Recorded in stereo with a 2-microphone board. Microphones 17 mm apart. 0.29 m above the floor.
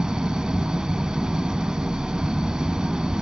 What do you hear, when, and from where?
0.0 s an engine running: 45° right (ahead or behind), 0.8 m